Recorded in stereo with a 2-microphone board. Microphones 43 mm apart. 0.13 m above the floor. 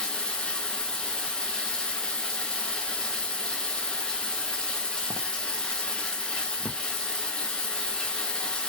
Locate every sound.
0.0 s running water: 15° left (ahead or behind), 0.9 m